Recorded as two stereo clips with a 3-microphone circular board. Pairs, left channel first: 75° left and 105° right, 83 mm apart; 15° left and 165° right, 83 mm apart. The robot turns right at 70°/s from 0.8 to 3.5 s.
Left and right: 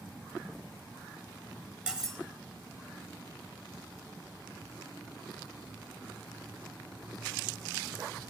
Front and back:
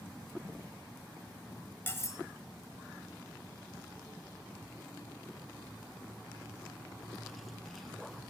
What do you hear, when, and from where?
1.9 s cutlery clinking: 35° right, 0.9 m; by 2.2 s 15° right, 0.9 m